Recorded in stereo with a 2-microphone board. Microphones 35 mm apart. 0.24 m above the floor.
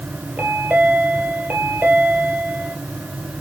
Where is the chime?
65° right (ahead or behind), 2.5 m.